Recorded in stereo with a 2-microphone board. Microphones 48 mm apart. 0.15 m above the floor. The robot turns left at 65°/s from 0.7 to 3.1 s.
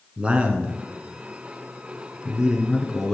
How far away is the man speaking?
About 1.5 m.